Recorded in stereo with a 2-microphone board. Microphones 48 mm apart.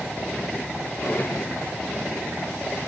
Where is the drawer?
45° left (ahead or behind), 1.3 m.